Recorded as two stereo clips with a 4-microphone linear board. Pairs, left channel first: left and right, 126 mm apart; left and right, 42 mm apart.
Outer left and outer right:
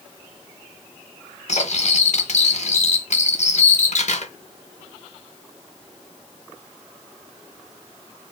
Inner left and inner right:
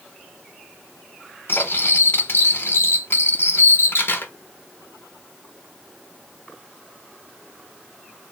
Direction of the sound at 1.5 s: 65° left (ahead or behind).